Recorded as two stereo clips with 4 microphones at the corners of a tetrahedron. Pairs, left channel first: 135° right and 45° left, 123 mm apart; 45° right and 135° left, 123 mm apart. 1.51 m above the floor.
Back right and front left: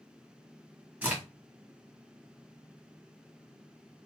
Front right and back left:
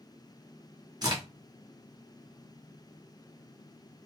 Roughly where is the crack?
Behind left.